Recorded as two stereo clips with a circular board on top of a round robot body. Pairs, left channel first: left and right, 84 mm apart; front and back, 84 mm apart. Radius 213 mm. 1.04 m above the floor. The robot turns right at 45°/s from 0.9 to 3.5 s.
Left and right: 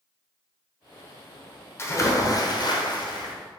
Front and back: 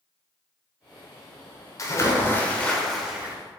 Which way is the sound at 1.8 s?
40° left.